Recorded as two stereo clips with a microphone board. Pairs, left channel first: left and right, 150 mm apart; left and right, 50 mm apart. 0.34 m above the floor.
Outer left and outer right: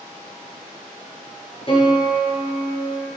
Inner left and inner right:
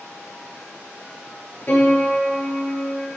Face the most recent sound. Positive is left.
turn(degrees=40)  # may be behind; listen again after turning